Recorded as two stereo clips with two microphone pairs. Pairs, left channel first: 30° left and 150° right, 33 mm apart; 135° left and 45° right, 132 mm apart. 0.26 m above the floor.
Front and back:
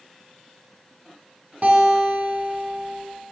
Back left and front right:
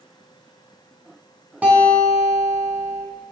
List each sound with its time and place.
1.6 s a guitar: 125° right, 3 m